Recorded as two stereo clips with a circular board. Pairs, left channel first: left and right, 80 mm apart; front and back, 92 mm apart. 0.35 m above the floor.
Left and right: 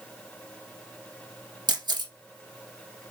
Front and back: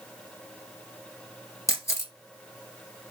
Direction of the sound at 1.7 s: 60° right.